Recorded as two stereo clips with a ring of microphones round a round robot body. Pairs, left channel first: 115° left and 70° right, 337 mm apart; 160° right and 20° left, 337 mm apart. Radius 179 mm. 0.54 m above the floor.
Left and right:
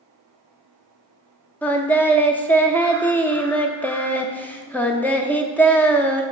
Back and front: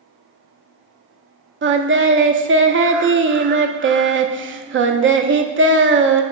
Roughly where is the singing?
Ahead left.